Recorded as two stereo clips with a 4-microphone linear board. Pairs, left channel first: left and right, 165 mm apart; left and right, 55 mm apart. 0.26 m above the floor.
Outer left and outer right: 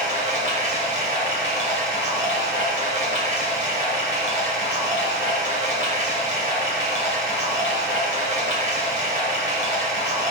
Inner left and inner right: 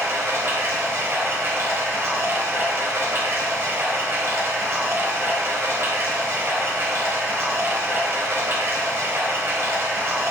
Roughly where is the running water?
Right.